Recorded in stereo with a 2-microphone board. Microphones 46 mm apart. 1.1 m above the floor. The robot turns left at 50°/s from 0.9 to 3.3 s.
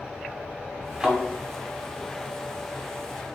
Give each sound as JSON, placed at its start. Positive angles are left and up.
{"t": 1.0, "sound": "a thud", "side_deg": -10, "distance_m": 1.7}